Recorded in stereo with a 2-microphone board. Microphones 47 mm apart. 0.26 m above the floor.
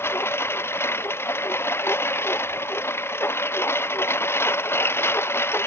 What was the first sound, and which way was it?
A lawn mower, 60° left (ahead or behind).